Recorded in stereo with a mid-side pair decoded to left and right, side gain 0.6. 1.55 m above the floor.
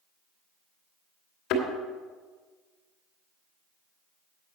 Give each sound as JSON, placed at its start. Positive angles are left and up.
{"t": 1.5, "sound": "a thud", "azimuth_deg": 70, "distance_m": 2.5}